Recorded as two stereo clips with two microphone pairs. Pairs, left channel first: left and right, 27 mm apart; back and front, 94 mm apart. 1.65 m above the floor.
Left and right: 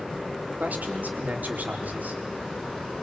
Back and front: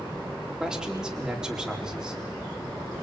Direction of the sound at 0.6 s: 85° right.